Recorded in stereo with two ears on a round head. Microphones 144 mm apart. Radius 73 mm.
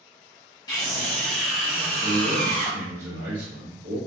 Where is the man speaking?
60° right (ahead or behind), 0.9 m.